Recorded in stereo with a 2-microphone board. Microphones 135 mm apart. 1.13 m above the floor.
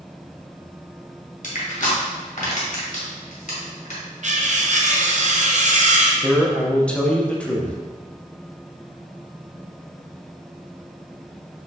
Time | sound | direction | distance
1.4 | crushing | 60° left (ahead or behind) | 1.8 m
4.2 | cutlery clinking | 55° right (ahead or behind) | 0.6 m
6.2 | a man speaking | 10° left (ahead or behind) | 0.8 m